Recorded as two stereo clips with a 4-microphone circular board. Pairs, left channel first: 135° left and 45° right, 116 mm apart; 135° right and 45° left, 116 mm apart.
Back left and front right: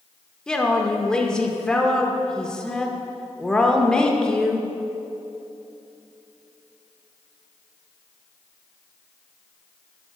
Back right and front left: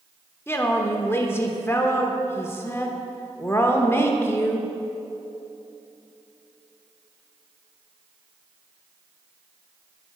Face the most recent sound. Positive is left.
turn(degrees=-155)